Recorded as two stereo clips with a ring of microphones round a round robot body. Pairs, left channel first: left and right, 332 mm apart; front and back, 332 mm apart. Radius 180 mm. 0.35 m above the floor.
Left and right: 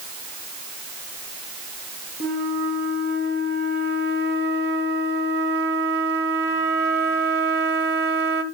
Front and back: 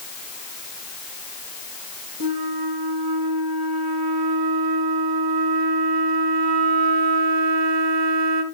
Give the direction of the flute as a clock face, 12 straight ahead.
5 o'clock.